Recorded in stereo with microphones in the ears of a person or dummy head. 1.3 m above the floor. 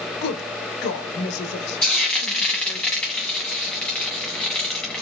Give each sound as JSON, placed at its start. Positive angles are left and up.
{"t": 0.2, "sound": "a woman speaking", "side_deg": 55, "distance_m": 0.9}
{"t": 1.8, "sound": "frying", "side_deg": 5, "distance_m": 1.0}